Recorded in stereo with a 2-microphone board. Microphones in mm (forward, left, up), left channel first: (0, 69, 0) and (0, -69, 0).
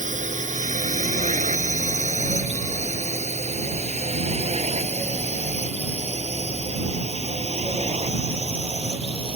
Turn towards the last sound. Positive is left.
turn(degrees=-45)  # may be behind; listen again after turning